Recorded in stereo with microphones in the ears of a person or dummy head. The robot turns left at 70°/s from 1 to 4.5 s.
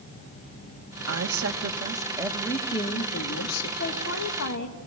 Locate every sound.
1.1 s a woman speaking: 90° right, 1.9 m; by 3.7 s 90° left, 1.9 m
3.8 s a woman speaking: 120° left, 1.6 m; by 4.8 s 70° left, 1.6 m